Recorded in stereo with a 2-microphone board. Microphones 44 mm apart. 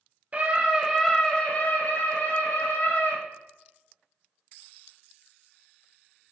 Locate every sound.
0.3 s a scream: 30° right (ahead or behind), 1.5 m; by 3.2 s 65° left (ahead or behind), 3 m